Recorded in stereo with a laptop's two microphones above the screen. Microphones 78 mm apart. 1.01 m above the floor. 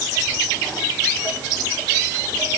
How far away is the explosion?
I don't hear an explosion.